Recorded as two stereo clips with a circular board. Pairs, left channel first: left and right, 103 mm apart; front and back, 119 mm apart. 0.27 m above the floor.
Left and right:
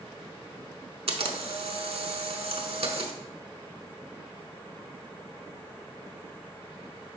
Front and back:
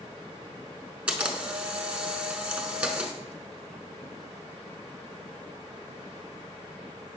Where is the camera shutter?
100° right, 0.6 m.